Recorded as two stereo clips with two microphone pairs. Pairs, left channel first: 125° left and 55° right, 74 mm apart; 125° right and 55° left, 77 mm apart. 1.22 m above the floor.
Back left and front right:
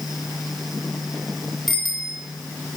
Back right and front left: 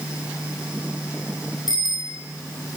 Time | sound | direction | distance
1.7 | a bicycle bell | 150° right | 8.5 m